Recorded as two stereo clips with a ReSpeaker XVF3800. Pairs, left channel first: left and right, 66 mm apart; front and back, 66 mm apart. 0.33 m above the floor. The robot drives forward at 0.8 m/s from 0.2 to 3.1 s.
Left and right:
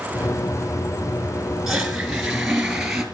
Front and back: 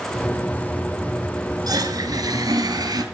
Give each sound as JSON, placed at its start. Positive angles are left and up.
{"t": 1.7, "sound": "a toilet flushing", "azimuth_deg": -175, "distance_m": 3.5}